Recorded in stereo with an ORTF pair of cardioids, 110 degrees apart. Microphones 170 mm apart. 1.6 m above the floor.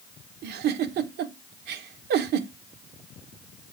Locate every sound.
0.4 s a giggle: 65° right, 1.3 m